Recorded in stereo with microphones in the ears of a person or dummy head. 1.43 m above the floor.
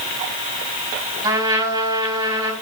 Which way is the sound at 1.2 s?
20° right (ahead or behind).